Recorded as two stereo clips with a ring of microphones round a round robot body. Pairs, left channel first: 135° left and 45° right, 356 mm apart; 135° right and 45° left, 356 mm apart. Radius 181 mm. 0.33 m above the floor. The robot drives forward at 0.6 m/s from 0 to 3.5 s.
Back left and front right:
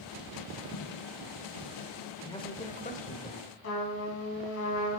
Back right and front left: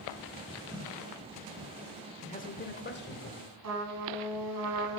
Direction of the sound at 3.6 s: 85° left.